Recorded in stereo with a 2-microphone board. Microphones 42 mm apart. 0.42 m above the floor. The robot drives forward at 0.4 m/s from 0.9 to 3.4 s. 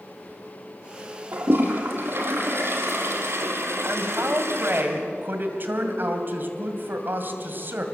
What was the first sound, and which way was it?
A toilet flushing, 60° right (ahead or behind).